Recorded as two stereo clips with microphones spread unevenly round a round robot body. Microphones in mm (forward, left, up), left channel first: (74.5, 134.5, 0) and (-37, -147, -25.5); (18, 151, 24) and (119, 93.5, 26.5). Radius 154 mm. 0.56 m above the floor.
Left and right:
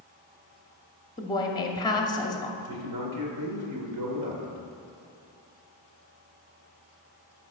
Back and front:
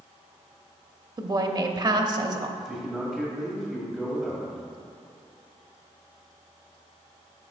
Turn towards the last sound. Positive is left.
turn(degrees=-125)